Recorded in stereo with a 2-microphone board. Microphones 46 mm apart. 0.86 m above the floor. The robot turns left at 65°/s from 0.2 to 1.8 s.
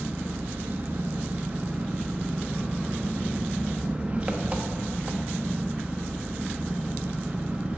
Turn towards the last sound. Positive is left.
turn(degrees=-145)